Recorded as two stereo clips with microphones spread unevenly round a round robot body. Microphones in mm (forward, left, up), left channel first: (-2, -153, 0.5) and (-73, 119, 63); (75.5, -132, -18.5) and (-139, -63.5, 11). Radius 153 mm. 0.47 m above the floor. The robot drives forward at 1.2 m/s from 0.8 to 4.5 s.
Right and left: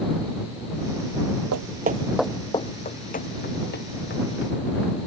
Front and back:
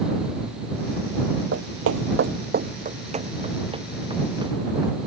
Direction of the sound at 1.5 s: 120° left.